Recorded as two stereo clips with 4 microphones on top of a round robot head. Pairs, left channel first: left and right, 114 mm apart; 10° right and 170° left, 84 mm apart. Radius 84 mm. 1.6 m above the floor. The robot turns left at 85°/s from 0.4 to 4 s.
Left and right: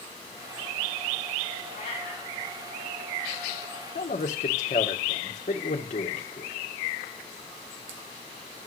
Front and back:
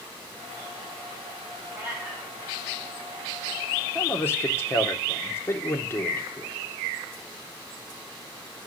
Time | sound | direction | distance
1.7 | a cat meowing | 110° left | 7.5 m
4.0 | a man speaking | 55° left | 1.5 m